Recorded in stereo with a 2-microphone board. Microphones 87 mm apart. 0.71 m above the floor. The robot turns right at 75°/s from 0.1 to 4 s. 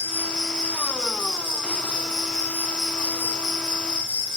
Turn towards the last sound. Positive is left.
turn(degrees=-95)